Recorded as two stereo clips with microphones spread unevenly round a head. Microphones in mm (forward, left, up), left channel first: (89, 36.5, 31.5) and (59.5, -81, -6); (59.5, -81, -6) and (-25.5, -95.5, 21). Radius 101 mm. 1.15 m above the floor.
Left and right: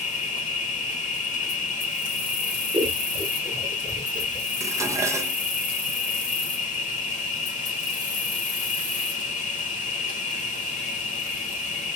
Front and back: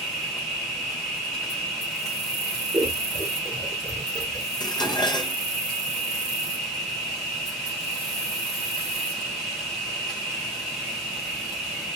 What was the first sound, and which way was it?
An insect, 75° left.